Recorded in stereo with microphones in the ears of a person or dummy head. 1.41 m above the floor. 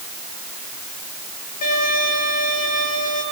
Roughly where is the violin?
Left.